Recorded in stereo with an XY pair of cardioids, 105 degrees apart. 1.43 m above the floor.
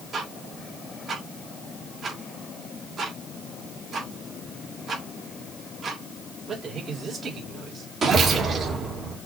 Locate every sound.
0.1 s ticking: 45° right, 2.5 m